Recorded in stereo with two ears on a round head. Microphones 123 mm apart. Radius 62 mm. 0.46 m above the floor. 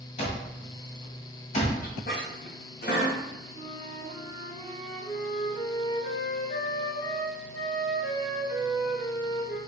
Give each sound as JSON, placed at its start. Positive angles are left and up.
{"t": 0.2, "sound": "an alarm clock", "side_deg": 45, "distance_m": 1.6}
{"t": 1.8, "sound": "a squeak", "side_deg": 65, "distance_m": 1.7}
{"t": 3.5, "sound": "a flute", "side_deg": 50, "distance_m": 2.0}